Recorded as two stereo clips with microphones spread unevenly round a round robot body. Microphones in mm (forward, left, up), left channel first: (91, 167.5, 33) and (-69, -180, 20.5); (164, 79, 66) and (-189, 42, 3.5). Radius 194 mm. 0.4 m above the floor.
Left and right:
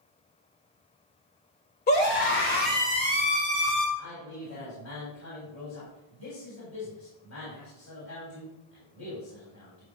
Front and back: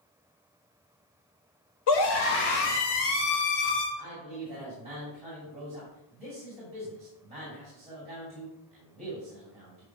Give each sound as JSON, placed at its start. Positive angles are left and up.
{"t": 1.9, "sound": "a scream", "azimuth_deg": 5, "distance_m": 2.0}
{"t": 4.0, "sound": "a man speaking", "azimuth_deg": 120, "distance_m": 3.0}